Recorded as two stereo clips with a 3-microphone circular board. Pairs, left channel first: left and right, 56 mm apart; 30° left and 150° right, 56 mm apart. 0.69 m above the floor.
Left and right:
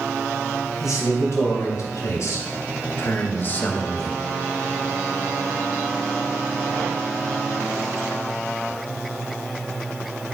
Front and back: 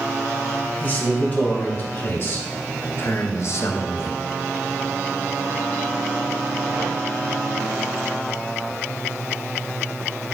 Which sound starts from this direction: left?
A man speaking, at 0.8 s.